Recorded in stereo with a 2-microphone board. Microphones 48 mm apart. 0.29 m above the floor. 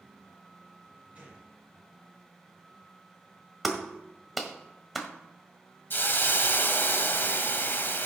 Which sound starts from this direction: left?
A hiss, at 5.9 s.